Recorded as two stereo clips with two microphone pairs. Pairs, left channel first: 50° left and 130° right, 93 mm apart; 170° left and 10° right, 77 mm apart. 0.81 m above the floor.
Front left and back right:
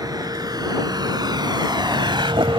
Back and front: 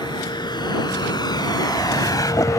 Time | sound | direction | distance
0.0 | a vehicle | 175° right | ?